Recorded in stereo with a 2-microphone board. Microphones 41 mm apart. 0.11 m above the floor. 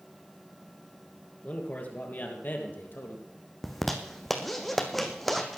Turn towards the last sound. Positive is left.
turn(degrees=5)  # may be behind; listen again after turning